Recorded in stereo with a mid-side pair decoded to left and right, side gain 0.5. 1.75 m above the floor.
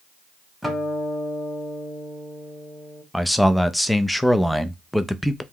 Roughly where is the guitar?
Ahead.